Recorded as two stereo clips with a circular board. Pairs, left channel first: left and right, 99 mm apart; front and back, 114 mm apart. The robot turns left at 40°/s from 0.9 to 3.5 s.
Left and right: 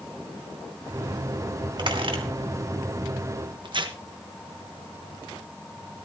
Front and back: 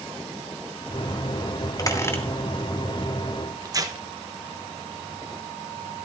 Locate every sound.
1.8 s a squeak: 55° right, 2.5 m; by 2.2 s 70° right, 2.5 m
3.6 s tearing paper: 125° right, 1.1 m